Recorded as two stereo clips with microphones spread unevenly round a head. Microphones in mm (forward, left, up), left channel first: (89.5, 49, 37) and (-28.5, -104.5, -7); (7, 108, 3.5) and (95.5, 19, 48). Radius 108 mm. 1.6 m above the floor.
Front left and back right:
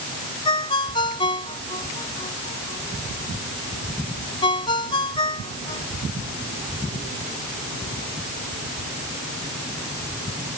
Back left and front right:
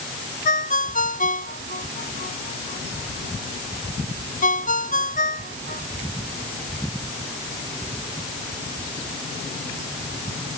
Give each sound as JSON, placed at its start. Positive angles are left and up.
{"t": 0.5, "sound": "a ringtone", "azimuth_deg": 120}